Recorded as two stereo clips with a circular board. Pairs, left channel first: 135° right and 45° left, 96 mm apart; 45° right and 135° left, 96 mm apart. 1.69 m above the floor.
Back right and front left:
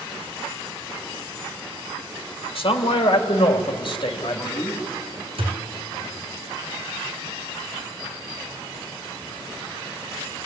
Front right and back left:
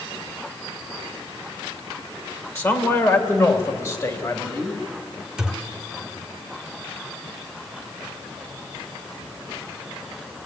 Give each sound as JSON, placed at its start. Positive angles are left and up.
{"t": 2.5, "sound": "a man speaking", "azimuth_deg": -105, "distance_m": 2.5}
{"t": 5.4, "sound": "a thud", "azimuth_deg": 50, "distance_m": 3.0}